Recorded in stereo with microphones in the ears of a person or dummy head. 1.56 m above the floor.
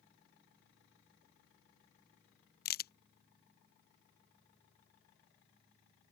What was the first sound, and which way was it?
A crack, 50° left (ahead or behind).